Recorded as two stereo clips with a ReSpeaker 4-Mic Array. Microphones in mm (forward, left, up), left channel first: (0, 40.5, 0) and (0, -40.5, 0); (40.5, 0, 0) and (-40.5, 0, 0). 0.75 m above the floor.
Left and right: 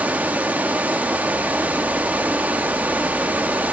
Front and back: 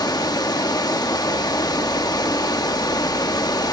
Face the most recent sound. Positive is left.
turn(degrees=-25)